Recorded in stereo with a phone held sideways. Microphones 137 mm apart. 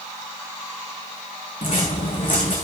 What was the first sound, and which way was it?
Footsteps, 70° left (ahead or behind).